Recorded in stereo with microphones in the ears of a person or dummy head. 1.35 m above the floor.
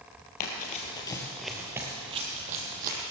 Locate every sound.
0.4 s running footsteps: 45° left (ahead or behind), 2 m; by 3.0 s 45° right (ahead or behind), 3 m